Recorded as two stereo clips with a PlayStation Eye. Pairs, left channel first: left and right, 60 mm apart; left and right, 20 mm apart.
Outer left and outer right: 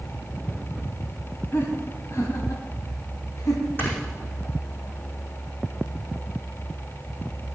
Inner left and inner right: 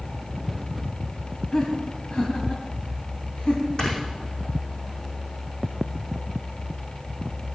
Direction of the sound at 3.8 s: 40° left (ahead or behind).